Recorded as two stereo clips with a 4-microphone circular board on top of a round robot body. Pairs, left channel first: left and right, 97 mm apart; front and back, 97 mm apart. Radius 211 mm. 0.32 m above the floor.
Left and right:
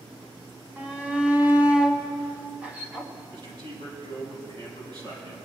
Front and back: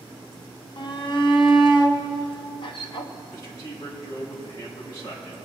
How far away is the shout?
About 1.5 m.